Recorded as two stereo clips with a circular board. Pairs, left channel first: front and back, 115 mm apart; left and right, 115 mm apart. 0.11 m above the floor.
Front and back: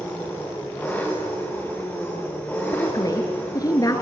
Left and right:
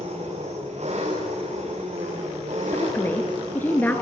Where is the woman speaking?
25° left, 1.3 m.